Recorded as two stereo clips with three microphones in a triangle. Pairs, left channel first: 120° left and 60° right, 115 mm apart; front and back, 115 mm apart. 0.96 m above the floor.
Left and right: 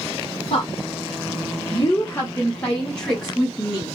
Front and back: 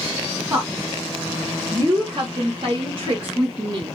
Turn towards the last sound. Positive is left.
turn(degrees=-140)